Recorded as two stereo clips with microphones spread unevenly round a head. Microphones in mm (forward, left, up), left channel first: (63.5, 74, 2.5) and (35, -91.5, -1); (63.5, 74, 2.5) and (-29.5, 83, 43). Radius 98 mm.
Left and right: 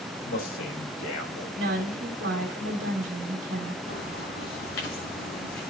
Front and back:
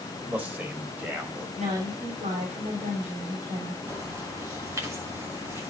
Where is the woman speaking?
135° right, 3.5 m.